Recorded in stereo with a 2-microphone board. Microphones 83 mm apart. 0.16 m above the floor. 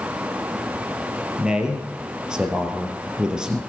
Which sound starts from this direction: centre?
A man speaking, at 1.4 s.